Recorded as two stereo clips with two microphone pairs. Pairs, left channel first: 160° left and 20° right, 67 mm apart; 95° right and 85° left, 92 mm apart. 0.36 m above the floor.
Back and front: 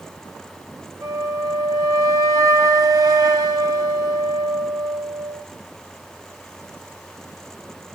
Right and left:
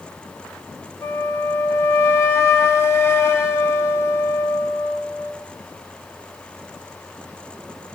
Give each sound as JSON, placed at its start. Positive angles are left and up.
{"t": 1.0, "sound": "a flute", "azimuth_deg": -40, "distance_m": 0.5}